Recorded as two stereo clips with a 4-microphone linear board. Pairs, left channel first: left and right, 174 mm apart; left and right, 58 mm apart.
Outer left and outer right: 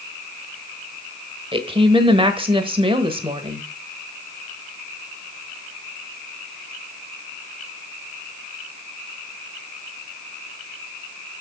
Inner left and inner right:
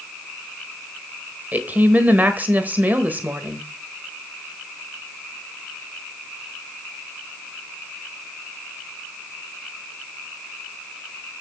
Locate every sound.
1.5 s a woman speaking: 30° right (ahead or behind), 1.3 m